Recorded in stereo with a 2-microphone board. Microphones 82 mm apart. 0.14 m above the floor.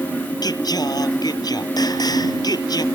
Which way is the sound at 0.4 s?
55° left (ahead or behind).